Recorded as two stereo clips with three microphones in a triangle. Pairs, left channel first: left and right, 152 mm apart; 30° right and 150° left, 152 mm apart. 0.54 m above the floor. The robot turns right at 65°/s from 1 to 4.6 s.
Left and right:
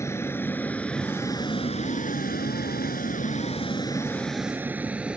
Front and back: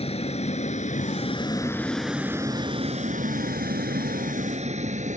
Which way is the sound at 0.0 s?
20° left.